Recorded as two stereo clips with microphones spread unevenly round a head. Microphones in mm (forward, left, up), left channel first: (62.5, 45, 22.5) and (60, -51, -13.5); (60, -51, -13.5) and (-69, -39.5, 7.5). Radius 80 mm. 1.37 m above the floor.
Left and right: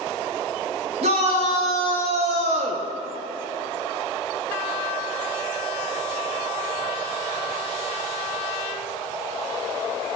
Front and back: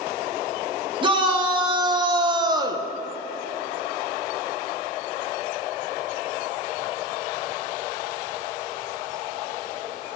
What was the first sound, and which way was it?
A shout, 135° right.